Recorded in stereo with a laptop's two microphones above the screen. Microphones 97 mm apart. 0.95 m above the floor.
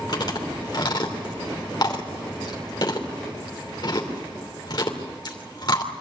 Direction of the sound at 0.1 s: 50° left (ahead or behind).